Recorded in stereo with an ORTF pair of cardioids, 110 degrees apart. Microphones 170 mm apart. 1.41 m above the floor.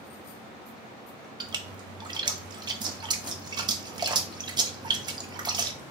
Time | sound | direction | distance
1.4 | a splash | 25° right | 0.6 m